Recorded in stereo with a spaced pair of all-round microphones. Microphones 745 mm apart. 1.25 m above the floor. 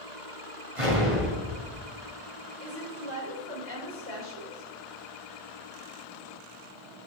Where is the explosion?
45° right (ahead or behind), 3.5 m.